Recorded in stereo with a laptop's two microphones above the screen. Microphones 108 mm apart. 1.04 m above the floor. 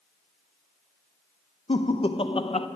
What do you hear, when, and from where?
1.7 s laughter: 55° left (ahead or behind), 0.5 m